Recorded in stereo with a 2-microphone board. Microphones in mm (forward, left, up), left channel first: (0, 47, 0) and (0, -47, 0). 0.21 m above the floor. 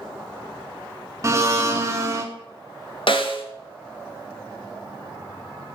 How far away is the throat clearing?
I don't hear throat clearing.